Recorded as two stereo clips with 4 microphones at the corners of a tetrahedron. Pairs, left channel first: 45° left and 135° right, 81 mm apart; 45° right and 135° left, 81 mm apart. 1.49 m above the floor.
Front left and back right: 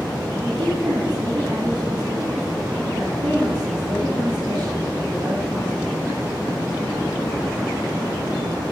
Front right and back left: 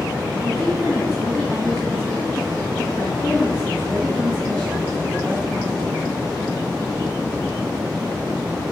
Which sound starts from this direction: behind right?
A woman speaking, at 0.4 s.